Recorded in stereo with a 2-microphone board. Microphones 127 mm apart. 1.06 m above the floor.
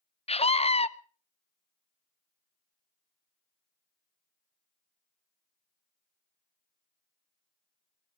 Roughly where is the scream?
Left.